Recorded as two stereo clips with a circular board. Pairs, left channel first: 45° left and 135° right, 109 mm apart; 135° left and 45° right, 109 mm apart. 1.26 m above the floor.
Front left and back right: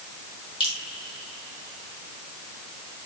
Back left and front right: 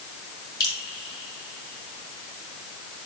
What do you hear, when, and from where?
0.6 s dripping: 80° left, 3 m